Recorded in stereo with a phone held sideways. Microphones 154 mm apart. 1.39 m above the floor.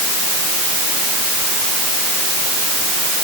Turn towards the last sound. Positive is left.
No sound to turn to.